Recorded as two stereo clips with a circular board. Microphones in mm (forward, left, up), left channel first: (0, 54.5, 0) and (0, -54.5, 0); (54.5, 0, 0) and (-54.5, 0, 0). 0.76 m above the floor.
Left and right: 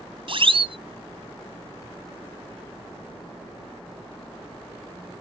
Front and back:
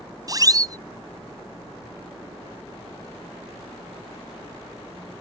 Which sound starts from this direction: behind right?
A siren, at 0.3 s.